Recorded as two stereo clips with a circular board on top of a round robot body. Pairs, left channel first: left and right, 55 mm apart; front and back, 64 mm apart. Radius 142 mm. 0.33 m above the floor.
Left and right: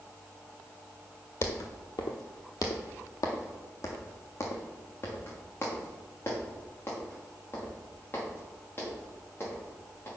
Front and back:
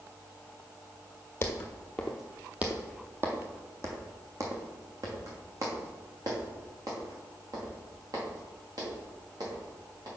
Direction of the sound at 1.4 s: 55° left.